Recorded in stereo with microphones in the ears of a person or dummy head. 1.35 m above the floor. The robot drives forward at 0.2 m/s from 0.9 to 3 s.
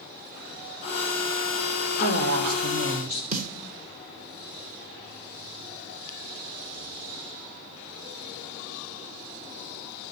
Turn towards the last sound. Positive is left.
turn(degrees=-45)  # may be behind; listen again after turning